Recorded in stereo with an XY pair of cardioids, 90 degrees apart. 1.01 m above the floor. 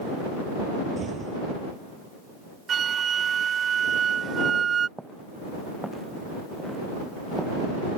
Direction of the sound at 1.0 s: 50° right.